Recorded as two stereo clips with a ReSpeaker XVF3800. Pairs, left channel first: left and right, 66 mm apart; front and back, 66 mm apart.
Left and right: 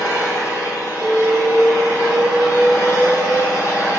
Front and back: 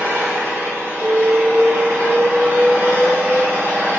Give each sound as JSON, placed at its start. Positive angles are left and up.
{"t": 0.0, "sound": "an engine running", "azimuth_deg": 120, "distance_m": 1.1}
{"t": 1.0, "sound": "an alarm", "azimuth_deg": 150, "distance_m": 2.5}